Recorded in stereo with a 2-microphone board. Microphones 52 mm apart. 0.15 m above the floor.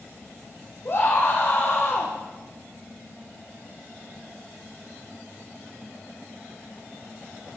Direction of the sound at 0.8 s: 45° left (ahead or behind).